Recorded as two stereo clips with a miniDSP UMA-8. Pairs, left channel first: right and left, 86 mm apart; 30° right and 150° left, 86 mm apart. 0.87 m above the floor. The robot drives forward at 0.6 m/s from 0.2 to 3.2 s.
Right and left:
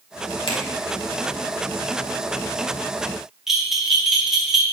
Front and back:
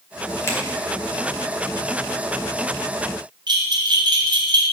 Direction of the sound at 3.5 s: 175° left.